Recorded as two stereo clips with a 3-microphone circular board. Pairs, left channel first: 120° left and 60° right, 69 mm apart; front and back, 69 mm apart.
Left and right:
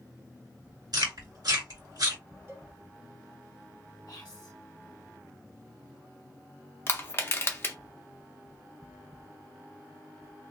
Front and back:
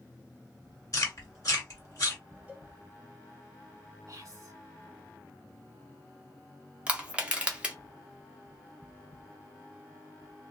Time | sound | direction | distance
0.9 | chewing | 40° right | 1.6 m
2.5 | a cowbell | 110° right | 0.9 m
4.1 | whispering | 150° left | 1.0 m
6.9 | crushing | 120° left | 0.8 m